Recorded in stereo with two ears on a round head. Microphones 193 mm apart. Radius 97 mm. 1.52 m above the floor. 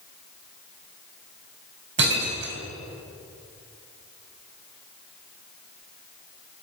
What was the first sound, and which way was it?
Breaking glass, 55° right (ahead or behind).